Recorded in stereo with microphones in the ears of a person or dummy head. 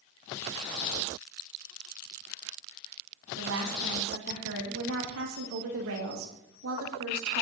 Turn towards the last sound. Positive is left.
turn(degrees=-80)